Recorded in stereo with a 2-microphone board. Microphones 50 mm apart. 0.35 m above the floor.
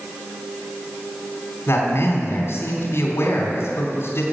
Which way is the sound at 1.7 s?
55° left (ahead or behind).